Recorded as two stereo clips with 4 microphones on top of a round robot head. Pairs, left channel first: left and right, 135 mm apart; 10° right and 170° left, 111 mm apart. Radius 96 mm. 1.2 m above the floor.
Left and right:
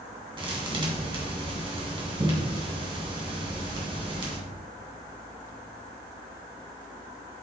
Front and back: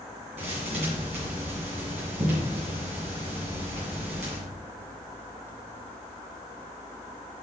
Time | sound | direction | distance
0.4 | a thud | 140° right | 2.5 m